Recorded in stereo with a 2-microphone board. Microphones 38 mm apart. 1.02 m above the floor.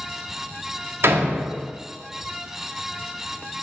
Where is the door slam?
75° right (ahead or behind), 1.9 m.